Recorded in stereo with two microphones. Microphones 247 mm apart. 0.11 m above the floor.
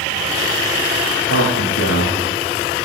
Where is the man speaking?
75° left (ahead or behind), 8 m.